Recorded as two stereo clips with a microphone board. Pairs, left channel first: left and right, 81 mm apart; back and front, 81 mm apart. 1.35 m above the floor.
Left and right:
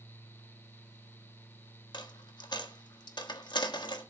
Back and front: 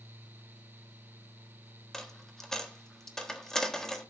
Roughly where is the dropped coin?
Left.